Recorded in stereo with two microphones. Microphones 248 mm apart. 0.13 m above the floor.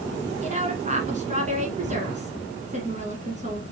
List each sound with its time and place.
0.4 s a woman speaking: 30° right (ahead or behind), 1.2 m